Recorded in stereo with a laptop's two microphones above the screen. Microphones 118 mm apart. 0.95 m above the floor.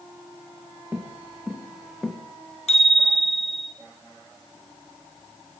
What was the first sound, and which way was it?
Footsteps, 15° right (ahead or behind).